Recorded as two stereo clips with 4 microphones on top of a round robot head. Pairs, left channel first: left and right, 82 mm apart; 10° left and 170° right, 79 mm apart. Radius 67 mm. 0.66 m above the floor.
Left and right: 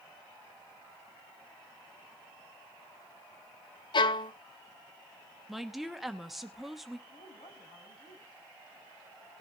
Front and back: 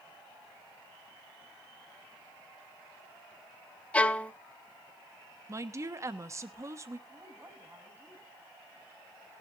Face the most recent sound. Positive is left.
turn(degrees=125)